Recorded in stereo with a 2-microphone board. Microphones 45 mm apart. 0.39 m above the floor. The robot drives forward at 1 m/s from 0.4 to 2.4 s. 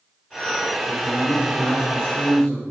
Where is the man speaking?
35° left (ahead or behind), 1.3 m; by 2.6 s 25° left (ahead or behind), 1.8 m.